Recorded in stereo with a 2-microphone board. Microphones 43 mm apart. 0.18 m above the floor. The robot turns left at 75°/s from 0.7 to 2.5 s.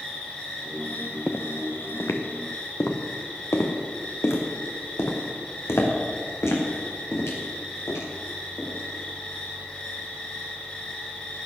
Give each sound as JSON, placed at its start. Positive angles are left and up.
{"t": 0.0, "sound": "an insect", "azimuth_deg": 160, "distance_m": 6.0}
{"t": 1.3, "sound": "footsteps", "side_deg": 5, "distance_m": 1.2}